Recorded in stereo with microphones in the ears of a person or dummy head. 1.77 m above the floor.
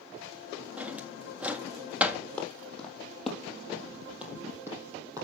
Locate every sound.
0.8 s a drawer: 10° right (ahead or behind), 1.8 m
2.4 s footsteps: 5° left (ahead or behind), 5 m; by 5.2 s 20° right (ahead or behind), 4 m